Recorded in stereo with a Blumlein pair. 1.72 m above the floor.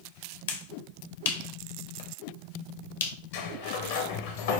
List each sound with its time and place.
0.5 s a finger snap: 60° left, 0.9 m
3.3 s a sliding door: 55° left, 0.8 m